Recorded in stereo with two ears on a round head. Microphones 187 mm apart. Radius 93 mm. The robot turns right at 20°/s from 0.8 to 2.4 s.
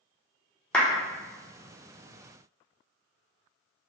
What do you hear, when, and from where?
0.7 s a clap: 5° left (ahead or behind), 0.6 m